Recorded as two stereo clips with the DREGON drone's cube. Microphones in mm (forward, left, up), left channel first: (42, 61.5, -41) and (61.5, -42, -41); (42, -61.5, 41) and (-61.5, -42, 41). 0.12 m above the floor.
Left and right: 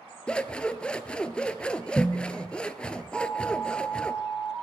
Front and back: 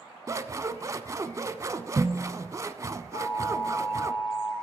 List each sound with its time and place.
0.3 s scissors: 170° left, 0.6 m
3.1 s an alarm: 5° right, 4.5 m